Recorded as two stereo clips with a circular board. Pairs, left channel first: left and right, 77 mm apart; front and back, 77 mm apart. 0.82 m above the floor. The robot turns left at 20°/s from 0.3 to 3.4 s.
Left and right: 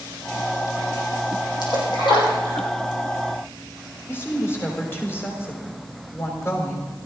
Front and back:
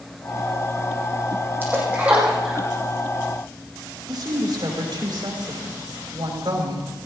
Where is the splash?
115° left, 6 m; by 2.7 s 95° left, 6 m.